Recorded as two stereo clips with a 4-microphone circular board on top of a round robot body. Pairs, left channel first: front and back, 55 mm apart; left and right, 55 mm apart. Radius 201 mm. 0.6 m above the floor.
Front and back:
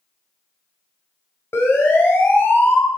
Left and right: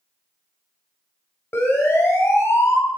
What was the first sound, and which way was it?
A siren, 45° left.